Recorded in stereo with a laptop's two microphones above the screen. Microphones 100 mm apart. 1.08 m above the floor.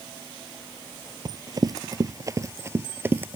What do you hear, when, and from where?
1.2 s running footsteps: 45° right (ahead or behind); by 3.4 s 20° right (ahead or behind)